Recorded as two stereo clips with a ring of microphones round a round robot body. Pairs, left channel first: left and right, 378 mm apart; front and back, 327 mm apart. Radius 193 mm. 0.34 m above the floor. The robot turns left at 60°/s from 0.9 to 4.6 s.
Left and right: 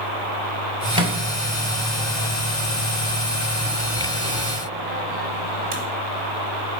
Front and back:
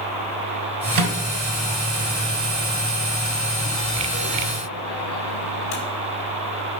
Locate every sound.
0.9 s a microwave: 165° right, 2 m; by 5.8 s 25° right, 2 m